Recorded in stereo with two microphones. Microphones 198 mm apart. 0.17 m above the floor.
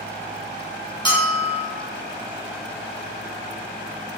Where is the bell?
25° left (ahead or behind), 1.2 m.